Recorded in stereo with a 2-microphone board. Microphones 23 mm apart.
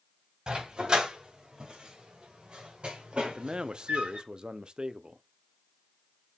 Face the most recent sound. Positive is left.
turn(degrees=-40)  # may be behind; listen again after turning